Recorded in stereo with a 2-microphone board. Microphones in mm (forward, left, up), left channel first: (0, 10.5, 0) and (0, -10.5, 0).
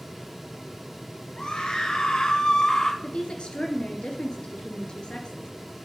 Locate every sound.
1.4 s a scream: 50° left (ahead or behind), 2 m; by 2.9 s 30° left (ahead or behind), 1.4 m
3.0 s a woman speaking: 55° left (ahead or behind), 2.5 m